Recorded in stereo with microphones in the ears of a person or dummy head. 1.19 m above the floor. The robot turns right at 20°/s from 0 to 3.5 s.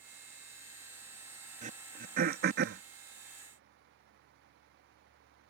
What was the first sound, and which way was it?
Throat clearing, 40° right (ahead or behind).